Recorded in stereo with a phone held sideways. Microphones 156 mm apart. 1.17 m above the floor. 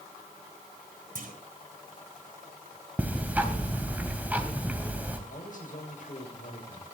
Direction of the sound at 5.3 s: 65° left (ahead or behind).